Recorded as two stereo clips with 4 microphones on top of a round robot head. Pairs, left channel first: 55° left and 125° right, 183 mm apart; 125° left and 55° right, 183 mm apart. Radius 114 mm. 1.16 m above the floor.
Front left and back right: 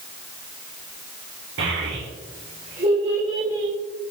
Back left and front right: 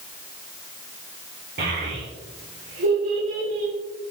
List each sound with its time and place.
1.6 s a child speaking: 100° right, 3 m; by 3.7 s 55° right, 4 m